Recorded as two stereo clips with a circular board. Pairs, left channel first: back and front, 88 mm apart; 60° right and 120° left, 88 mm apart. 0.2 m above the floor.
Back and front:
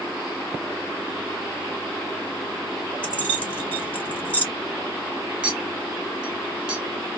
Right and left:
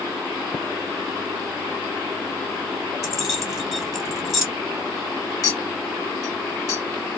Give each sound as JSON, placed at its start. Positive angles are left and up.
{"t": 3.0, "sound": "keys jangling", "azimuth_deg": -165, "distance_m": 1.0}
{"t": 5.4, "sound": "a clink", "azimuth_deg": -65, "distance_m": 1.0}